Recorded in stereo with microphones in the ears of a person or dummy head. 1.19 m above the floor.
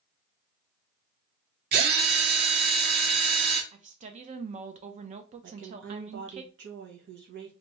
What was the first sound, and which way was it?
A drill, 55° right (ahead or behind).